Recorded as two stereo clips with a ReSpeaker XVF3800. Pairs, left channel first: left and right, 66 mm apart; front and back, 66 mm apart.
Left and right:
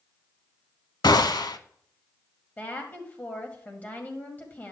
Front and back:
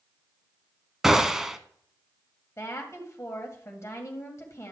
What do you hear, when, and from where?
1.0 s a gunshot: 95° left, 0.6 m
2.6 s a woman speaking: 30° left, 2 m